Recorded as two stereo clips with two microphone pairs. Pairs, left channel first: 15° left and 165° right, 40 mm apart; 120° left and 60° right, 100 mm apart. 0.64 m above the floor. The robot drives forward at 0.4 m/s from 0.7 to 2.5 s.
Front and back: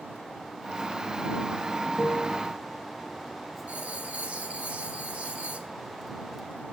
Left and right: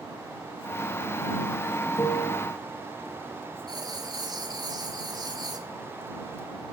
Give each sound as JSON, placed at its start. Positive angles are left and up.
{"t": 2.0, "sound": "a piano", "azimuth_deg": 155, "distance_m": 4.0}
{"t": 3.7, "sound": "writing", "azimuth_deg": -105, "distance_m": 1.5}